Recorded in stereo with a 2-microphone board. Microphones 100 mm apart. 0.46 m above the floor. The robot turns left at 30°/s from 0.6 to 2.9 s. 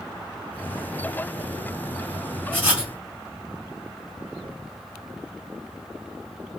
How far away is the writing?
About 1.8 m.